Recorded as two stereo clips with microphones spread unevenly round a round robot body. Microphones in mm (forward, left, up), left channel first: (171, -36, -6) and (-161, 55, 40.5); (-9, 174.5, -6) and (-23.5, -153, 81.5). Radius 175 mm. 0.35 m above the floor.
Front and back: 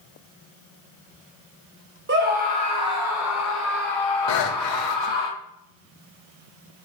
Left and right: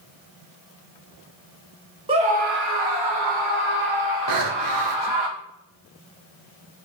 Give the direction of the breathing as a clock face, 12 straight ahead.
2 o'clock.